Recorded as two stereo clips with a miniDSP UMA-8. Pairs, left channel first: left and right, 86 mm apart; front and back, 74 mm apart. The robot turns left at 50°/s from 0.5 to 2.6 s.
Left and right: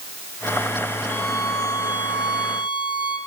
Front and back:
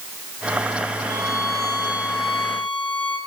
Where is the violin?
155° left, 2.5 m; by 3.2 s 80° left, 2.5 m.